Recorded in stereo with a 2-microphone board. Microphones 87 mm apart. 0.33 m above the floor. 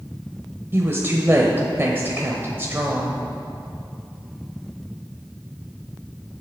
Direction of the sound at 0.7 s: 30° right (ahead or behind).